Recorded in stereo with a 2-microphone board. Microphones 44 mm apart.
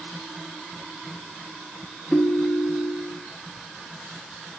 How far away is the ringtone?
About 2.5 m.